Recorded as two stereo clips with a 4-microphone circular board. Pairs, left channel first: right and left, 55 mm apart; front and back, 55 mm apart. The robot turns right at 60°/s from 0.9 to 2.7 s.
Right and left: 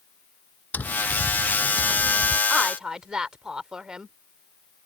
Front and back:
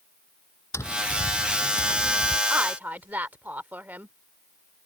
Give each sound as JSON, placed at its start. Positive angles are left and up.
{"t": 0.7, "sound": "tapping", "azimuth_deg": -30}
{"t": 2.5, "sound": "a woman speaking", "azimuth_deg": 145}